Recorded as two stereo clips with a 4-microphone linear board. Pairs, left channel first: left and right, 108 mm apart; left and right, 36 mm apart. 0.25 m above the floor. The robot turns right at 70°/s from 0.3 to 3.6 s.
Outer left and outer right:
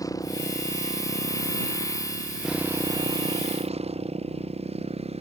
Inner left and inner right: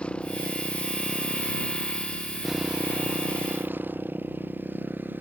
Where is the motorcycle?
35° left; by 5.2 s 95° right.